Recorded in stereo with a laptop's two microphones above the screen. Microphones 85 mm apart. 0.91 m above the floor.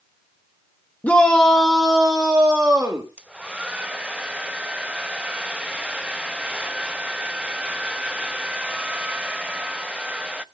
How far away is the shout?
About 1.0 m.